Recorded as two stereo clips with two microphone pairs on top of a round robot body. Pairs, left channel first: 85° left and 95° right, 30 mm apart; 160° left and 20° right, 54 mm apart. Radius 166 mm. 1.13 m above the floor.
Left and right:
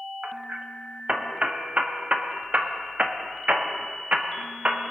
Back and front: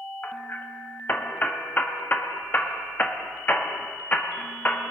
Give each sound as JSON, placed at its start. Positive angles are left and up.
{"t": 0.2, "sound": "hammering", "azimuth_deg": -140, "distance_m": 1.8}